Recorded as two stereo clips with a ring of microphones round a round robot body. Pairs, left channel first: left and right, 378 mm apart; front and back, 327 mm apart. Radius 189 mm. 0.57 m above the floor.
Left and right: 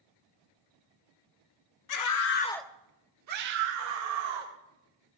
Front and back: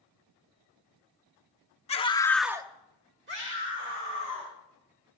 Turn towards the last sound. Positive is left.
turn(degrees=-120)